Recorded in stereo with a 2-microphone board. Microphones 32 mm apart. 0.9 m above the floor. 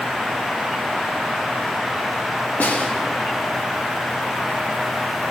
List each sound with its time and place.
2.6 s a snare drum: 60° left (ahead or behind), 0.8 m